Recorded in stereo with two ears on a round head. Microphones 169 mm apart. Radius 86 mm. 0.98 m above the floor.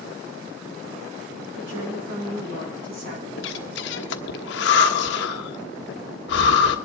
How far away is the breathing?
About 1.2 m.